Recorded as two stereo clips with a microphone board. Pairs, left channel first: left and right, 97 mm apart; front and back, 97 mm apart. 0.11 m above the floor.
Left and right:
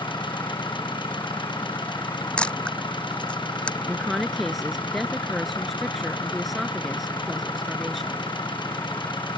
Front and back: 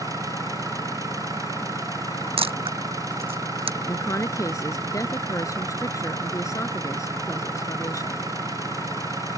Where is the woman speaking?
Straight ahead.